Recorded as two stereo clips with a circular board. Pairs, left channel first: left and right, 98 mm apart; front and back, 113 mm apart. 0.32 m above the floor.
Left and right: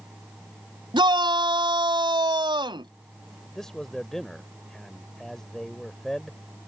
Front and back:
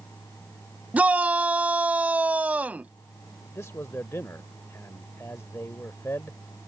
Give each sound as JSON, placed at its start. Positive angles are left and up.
{"t": 0.9, "sound": "a shout", "azimuth_deg": -105}
{"t": 3.5, "sound": "a man speaking", "azimuth_deg": 10}